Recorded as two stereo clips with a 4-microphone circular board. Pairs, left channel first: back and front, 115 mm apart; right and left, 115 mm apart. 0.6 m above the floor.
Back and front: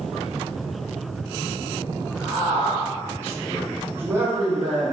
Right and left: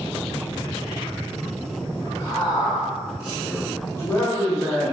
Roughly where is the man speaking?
Behind right.